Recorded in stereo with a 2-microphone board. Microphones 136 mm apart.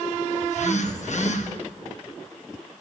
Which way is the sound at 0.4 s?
60° left (ahead or behind).